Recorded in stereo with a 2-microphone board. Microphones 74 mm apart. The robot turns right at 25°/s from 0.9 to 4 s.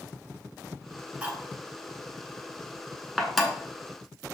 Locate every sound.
1.2 s cutlery clinking: 20° right (ahead or behind), 0.7 m; by 3.5 s 5° left (ahead or behind), 0.7 m